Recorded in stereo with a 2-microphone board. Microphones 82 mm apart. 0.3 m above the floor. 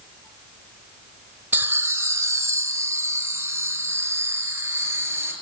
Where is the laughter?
25° right (ahead or behind), 1.0 m; by 5.3 s 30° right (ahead or behind), 4.5 m.